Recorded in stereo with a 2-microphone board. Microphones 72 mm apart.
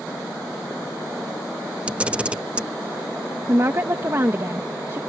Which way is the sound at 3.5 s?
40° right (ahead or behind).